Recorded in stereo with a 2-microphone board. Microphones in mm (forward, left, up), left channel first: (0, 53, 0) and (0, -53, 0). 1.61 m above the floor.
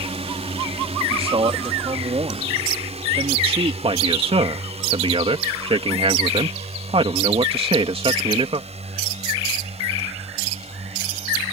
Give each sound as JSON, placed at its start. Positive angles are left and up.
{"t": 0.0, "sound": "a drone", "side_deg": -75}
{"t": 1.1, "sound": "a man speaking", "side_deg": -65}
{"t": 3.8, "sound": "a man speaking", "side_deg": -65}